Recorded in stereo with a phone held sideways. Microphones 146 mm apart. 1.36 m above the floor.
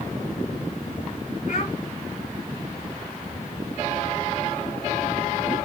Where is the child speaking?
70° left (ahead or behind), 3.5 m.